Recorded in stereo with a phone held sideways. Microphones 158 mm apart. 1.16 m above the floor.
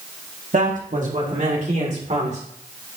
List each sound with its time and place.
0.5 s a man speaking: 60° right (ahead or behind), 1.8 m; by 2.4 s 50° right (ahead or behind), 3 m